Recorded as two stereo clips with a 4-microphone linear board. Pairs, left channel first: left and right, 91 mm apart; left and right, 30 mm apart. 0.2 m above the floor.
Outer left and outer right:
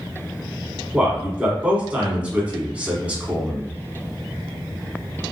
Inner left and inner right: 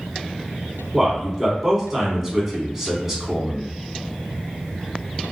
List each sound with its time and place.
0.9 s a man speaking: 15° right (ahead or behind), 1.3 m